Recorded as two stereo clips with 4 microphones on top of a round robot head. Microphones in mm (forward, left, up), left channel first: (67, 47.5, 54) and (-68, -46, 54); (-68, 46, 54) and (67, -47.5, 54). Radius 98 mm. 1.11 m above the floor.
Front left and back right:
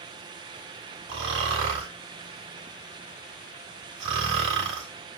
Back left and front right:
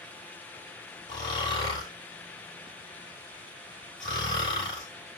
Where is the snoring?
150° right, 3.5 m.